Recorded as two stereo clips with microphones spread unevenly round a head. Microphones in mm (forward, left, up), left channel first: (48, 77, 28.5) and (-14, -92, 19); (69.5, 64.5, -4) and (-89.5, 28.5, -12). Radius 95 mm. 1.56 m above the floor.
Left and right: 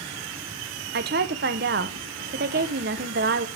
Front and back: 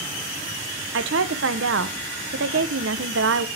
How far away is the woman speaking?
About 1.0 m.